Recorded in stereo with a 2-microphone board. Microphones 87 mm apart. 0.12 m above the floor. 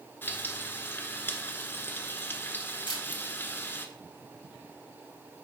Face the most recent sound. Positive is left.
turn(degrees=60)  # may be behind; listen again after turning